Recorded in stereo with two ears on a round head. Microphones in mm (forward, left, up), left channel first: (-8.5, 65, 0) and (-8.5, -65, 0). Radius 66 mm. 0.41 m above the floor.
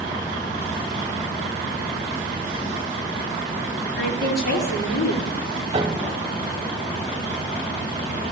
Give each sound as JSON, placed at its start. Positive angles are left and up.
{"t": 4.0, "sound": "a woman speaking", "side_deg": 75, "distance_m": 6.5}
{"t": 5.7, "sound": "a piano", "side_deg": -35, "distance_m": 1.2}